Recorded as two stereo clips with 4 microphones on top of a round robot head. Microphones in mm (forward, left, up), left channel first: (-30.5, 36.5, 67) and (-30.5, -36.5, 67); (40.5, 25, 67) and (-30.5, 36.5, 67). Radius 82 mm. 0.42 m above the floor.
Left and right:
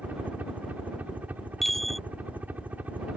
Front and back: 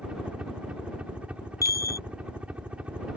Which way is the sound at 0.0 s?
130° right.